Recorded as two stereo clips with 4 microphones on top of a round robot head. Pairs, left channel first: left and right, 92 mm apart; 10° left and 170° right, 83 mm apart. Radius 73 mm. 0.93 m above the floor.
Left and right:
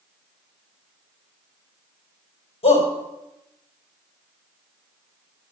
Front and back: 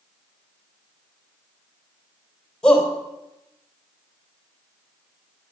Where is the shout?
85° left, 4 m.